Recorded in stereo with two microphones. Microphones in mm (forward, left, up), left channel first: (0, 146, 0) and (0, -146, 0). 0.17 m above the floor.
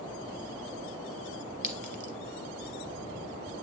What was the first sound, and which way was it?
A clink, 30° right (ahead or behind).